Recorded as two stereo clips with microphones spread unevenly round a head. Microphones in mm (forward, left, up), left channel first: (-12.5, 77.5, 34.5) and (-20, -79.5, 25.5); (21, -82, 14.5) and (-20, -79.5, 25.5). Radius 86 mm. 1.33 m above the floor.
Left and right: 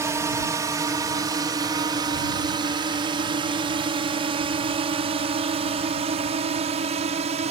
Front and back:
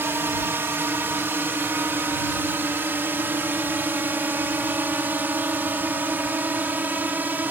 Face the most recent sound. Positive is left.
turn(degrees=-140)